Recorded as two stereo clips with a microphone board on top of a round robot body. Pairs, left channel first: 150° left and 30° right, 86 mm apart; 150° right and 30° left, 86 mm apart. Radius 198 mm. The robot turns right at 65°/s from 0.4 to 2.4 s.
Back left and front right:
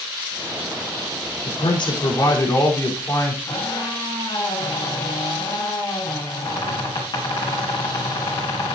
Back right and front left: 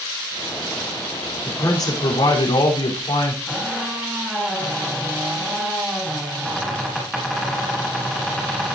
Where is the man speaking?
145° left, 3.5 m; by 3.4 s 155° right, 3.5 m.